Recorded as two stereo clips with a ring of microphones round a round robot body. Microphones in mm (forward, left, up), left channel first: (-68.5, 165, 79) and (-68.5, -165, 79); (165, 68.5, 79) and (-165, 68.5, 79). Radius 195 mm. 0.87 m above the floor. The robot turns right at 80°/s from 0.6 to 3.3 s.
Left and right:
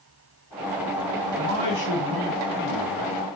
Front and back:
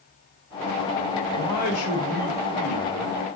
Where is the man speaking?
40° right, 2 m; by 3.1 s 105° left, 2 m.